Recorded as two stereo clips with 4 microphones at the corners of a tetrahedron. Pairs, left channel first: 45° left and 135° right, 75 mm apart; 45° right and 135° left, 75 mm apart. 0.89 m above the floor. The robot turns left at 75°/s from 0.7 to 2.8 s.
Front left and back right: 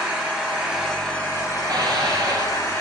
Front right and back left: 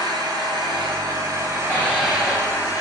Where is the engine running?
150° left, 4 m; by 2.8 s 5° right, 4 m.